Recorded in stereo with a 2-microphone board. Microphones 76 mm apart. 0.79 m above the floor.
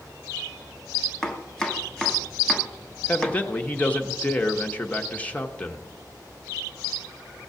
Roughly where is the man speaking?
Centre.